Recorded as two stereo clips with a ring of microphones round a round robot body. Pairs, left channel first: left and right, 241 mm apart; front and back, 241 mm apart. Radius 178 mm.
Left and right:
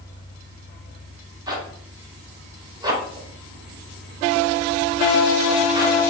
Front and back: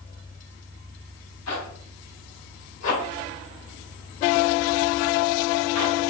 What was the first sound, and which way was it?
A zipper, 15° right.